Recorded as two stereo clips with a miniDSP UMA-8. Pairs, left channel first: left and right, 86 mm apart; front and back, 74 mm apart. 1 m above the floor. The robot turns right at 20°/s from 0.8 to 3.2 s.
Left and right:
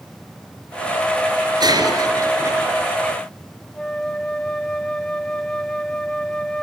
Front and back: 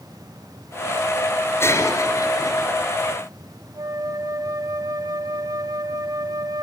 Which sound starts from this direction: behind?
A flute, at 3.8 s.